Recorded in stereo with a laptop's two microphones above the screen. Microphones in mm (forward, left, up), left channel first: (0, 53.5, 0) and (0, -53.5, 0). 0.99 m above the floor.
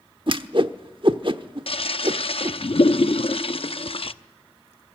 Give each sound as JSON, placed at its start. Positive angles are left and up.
{"t": 0.3, "sound": "a whoosh", "side_deg": -50, "distance_m": 1.0}
{"t": 1.7, "sound": "a toilet flushing", "side_deg": 60, "distance_m": 0.7}